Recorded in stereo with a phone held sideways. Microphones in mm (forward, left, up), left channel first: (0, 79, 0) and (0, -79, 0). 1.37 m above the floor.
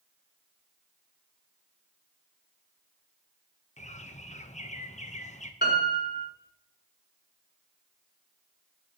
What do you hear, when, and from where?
3.8 s a bird: 45° left (ahead or behind), 0.8 m
5.6 s a piano: 85° left, 4.5 m